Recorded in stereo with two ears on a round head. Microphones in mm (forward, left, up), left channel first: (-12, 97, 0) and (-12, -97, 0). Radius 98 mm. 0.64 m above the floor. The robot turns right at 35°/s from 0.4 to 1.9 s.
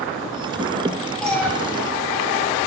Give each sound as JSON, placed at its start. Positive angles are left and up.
{"t": 1.2, "sound": "a cat meowing", "side_deg": 0, "distance_m": 2.5}